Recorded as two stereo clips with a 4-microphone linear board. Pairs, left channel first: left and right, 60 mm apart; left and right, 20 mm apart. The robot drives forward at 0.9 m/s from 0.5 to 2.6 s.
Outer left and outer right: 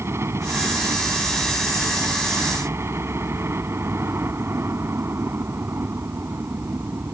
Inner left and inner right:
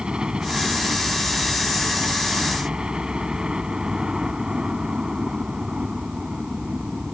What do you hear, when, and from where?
0.0 s a helicopter: 45° right (ahead or behind); by 7.1 s 40° right (ahead or behind)